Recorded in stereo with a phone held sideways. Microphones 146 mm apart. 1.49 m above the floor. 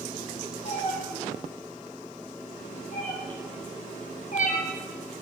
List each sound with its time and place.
0.7 s a cat meowing: 55° left (ahead or behind), 8 m; by 4.7 s 60° left (ahead or behind), 2.5 m